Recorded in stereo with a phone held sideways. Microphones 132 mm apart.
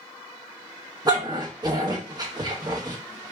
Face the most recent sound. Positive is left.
turn(degrees=-30)  # may be behind; listen again after turning